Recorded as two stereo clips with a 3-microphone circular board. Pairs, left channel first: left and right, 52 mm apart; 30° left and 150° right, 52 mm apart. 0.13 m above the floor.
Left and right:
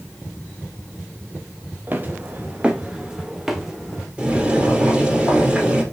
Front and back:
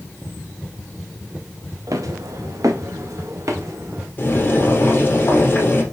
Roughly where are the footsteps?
Behind right.